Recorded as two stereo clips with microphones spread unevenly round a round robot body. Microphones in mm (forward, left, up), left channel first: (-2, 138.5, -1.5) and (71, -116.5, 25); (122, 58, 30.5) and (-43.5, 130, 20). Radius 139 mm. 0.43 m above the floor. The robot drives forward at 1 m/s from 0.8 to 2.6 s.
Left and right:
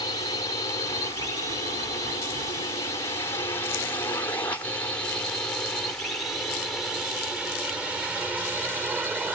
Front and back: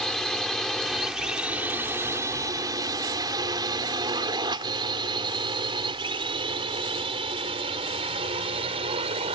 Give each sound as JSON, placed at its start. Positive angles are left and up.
{"t": 0.0, "sound": "a drone", "azimuth_deg": 65}